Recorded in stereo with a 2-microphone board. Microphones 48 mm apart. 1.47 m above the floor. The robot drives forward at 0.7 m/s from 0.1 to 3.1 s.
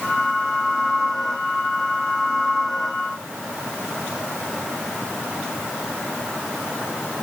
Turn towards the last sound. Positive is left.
No sound to turn to.